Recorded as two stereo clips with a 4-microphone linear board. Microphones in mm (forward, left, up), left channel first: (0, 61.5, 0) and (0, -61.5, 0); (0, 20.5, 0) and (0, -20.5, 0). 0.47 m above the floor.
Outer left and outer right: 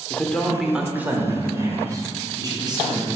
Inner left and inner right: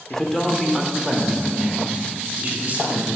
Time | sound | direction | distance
0.1 | a man speaking | 15° left (ahead or behind) | 0.9 m